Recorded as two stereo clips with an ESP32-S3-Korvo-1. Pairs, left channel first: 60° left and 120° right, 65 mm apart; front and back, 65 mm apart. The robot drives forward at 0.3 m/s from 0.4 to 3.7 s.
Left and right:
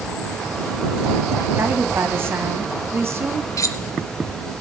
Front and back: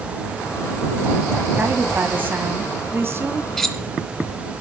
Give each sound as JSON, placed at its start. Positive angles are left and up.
{"t": 1.6, "sound": "a woman speaking", "azimuth_deg": -135, "distance_m": 1.7}
{"t": 3.6, "sound": "cutlery clinking", "azimuth_deg": 85, "distance_m": 1.2}